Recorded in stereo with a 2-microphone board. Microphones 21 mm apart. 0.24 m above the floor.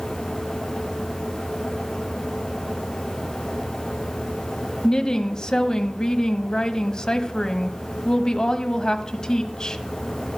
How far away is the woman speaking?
About 1.1 m.